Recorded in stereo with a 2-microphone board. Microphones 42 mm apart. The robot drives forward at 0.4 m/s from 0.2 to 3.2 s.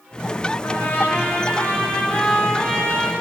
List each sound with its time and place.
0.6 s a trumpet: 60° left (ahead or behind), 0.6 m; by 3.1 s 30° left (ahead or behind), 1.2 m